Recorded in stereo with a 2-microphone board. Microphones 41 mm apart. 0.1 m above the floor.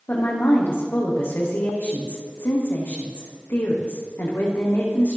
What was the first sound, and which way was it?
A woman speaking, 65° left (ahead or behind).